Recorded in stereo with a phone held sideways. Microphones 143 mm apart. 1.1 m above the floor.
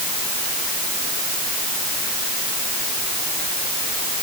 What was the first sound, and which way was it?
Only background noise.